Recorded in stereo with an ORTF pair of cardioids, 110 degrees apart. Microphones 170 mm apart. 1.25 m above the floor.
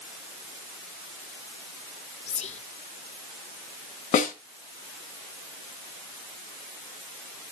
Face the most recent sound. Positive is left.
turn(degrees=50)